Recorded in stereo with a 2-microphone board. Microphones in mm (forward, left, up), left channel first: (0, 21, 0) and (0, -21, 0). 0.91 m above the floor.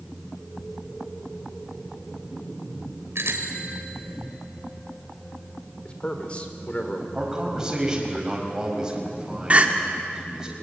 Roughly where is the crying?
Right.